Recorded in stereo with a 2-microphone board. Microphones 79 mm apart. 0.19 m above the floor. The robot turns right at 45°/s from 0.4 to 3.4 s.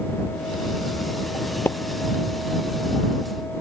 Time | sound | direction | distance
1.6 | a splash | 25° left (ahead or behind) | ?